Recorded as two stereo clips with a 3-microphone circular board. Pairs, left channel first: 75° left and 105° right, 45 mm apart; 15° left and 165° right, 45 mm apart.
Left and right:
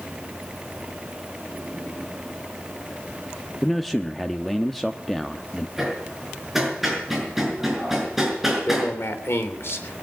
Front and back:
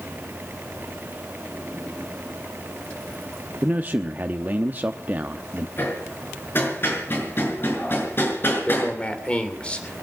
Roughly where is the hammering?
Ahead.